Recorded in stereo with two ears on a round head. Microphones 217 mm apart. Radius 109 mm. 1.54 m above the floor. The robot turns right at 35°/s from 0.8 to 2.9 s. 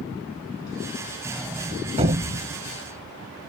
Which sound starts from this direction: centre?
A sliding door, at 1.2 s.